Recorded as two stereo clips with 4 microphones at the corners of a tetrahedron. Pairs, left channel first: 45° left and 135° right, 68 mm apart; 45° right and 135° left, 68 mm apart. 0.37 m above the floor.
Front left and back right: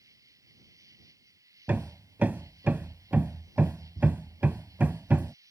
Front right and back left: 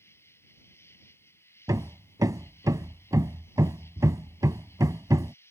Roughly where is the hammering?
Behind.